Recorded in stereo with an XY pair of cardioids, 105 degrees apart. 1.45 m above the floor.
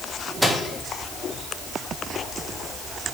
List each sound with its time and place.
0.4 s a microwave: straight ahead, 1.3 m